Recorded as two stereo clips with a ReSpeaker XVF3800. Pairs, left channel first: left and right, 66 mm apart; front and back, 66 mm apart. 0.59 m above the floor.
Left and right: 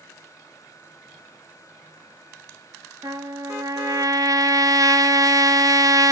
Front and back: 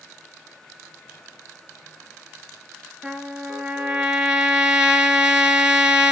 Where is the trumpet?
100° right, 1.4 m.